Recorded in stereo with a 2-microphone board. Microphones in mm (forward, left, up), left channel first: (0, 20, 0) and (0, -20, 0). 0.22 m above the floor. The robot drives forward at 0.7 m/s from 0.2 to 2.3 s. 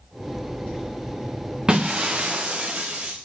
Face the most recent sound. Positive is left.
turn(degrees=-25)  # may be behind; listen again after turning